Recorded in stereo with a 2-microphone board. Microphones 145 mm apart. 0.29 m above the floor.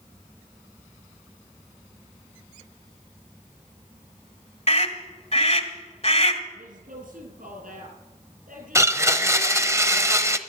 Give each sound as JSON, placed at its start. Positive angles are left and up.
{"t": 4.7, "sound": "a scream", "side_deg": 45, "distance_m": 1.6}
{"t": 6.5, "sound": "a woman speaking", "side_deg": -75, "distance_m": 6.0}
{"t": 8.8, "sound": "a blender", "side_deg": -20, "distance_m": 0.7}